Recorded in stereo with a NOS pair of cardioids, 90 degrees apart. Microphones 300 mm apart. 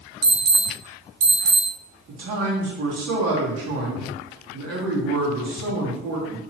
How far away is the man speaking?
About 1.4 m.